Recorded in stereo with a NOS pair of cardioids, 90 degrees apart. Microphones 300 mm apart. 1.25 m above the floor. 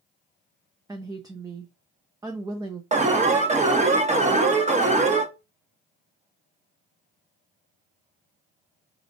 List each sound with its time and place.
0.9 s a woman speaking: 15° right, 0.7 m
2.9 s an alarm: 25° right, 1.2 m